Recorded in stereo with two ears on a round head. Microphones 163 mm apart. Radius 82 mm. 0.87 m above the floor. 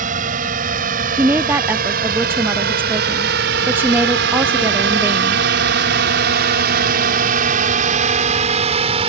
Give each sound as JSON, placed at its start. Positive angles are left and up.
{"t": 0.0, "sound": "a drone", "side_deg": -45}
{"t": 1.2, "sound": "a woman speaking", "side_deg": -10}